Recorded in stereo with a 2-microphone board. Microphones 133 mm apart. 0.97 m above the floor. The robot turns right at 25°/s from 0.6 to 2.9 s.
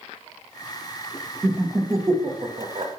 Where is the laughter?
15° right (ahead or behind), 1.1 m; by 2.9 s 45° right (ahead or behind), 1.1 m.